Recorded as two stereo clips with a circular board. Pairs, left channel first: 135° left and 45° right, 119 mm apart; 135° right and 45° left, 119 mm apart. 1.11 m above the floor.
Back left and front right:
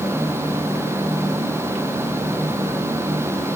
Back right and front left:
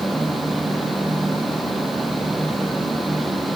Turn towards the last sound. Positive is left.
No sound to turn to.